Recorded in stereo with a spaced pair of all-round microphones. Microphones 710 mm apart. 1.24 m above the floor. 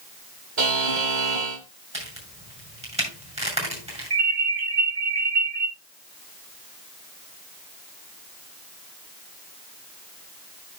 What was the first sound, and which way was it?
A buzzer, 80° right.